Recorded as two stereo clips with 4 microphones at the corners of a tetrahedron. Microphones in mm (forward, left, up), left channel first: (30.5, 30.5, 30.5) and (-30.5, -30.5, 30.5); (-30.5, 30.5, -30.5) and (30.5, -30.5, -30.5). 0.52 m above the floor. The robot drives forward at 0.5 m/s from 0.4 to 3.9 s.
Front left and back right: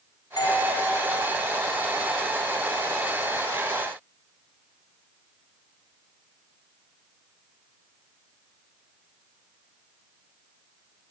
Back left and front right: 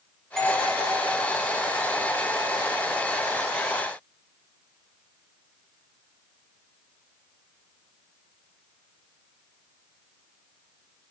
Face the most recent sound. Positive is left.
turn(degrees=95)